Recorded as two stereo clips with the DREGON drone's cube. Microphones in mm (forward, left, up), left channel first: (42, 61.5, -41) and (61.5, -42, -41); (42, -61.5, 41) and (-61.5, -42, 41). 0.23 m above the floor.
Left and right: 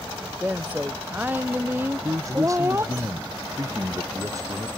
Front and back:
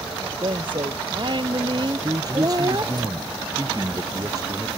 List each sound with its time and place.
0.2 s a woman speaking: 155° right; by 3.0 s 145° right
2.0 s a man speaking: 140° right